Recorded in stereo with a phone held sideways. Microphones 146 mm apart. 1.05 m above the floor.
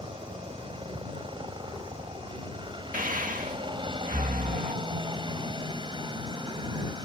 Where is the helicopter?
35° right (ahead or behind); by 7.0 s 30° right (ahead or behind).